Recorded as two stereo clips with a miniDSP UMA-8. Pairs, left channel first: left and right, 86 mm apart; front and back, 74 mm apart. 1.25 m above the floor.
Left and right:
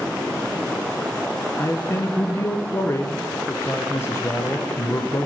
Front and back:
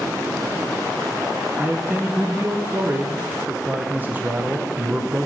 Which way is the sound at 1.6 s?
130° left.